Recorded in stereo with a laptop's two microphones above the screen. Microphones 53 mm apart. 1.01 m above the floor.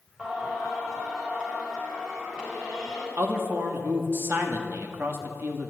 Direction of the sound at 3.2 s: 40° right (ahead or behind).